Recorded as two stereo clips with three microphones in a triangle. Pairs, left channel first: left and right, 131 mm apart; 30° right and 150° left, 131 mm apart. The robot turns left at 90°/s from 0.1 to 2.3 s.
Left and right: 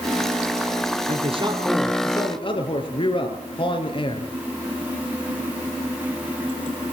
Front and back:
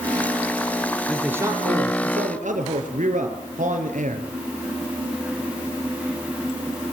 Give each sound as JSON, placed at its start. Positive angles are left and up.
{"t": 1.1, "sound": "a man speaking", "azimuth_deg": -110, "distance_m": 5.5}